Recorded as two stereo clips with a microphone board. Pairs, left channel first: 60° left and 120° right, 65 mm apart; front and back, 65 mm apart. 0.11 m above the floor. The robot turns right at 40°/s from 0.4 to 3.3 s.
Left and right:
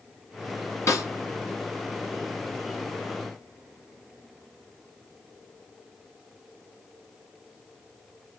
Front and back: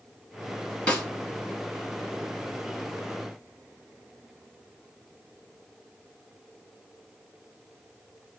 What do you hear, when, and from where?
0.9 s a snare drum: 65° left, 1.9 m; by 1.1 s 75° left, 1.9 m